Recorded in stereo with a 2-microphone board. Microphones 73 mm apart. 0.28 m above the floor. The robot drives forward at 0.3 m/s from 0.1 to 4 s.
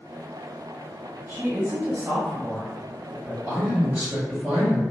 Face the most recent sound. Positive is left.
turn(degrees=-20)  # may be behind; listen again after turning